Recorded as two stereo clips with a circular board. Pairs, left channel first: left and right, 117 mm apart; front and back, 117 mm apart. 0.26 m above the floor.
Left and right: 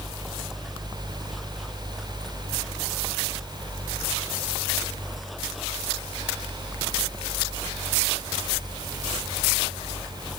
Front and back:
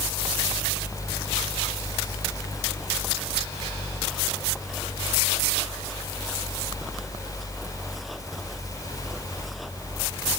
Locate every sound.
Only background noise.